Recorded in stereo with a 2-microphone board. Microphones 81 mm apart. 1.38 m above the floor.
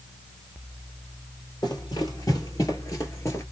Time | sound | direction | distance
1.6 | running footsteps | 55° left (ahead or behind) | 2 m